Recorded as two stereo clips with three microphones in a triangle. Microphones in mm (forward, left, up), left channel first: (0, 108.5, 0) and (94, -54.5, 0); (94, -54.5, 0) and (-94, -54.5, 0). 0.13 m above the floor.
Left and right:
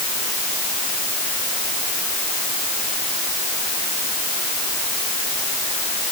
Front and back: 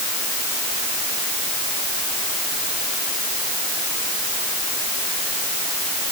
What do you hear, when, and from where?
Only background noise.